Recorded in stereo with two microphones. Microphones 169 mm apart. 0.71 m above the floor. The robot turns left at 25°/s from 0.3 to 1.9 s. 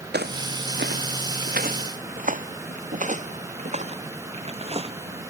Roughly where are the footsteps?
Right.